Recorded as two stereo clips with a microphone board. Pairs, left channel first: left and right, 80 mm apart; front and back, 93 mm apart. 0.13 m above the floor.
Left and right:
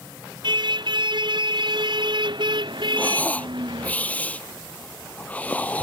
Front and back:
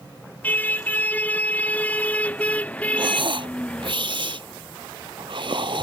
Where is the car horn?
70° right; by 4.0 s 75° right.